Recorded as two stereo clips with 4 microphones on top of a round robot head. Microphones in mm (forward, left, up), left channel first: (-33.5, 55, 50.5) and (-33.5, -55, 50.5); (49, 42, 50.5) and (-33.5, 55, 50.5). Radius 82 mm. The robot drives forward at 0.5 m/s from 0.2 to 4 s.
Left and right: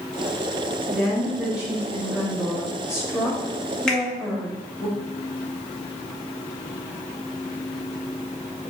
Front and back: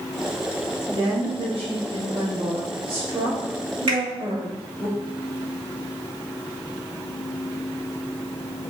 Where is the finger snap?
175° left, 1.9 m.